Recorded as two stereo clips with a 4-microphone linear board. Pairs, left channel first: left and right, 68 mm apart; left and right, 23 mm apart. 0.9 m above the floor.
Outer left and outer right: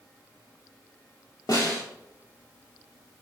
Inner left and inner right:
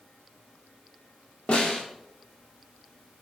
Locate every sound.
1.5 s a snare drum: 60° left (ahead or behind), 2.5 m